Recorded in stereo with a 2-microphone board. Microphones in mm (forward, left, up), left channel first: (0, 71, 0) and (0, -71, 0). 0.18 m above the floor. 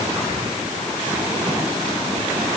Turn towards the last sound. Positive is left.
No sound to turn to.